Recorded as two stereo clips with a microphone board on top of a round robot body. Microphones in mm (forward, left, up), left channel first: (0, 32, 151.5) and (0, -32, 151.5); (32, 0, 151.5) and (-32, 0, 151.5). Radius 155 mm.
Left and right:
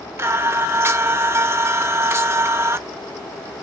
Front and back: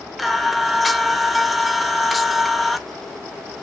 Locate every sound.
0.2 s singing: 90° right, 1.1 m